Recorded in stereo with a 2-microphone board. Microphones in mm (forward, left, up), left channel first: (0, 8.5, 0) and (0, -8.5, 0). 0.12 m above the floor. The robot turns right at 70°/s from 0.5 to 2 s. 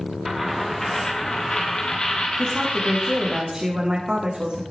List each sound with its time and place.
0.2 s a dropped coin: 5° left, 5.5 m; by 3.4 s 110° left, 5.5 m
2.4 s a woman speaking: 70° right (ahead or behind), 6.5 m